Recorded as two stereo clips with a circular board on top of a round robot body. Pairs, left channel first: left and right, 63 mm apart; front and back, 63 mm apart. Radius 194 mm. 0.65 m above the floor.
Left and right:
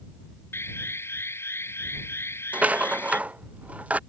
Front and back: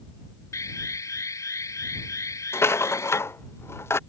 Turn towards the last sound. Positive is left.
turn(degrees=-30)